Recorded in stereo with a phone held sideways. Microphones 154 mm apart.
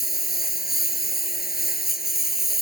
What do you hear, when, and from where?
0.0 s a lawn mower: 80° left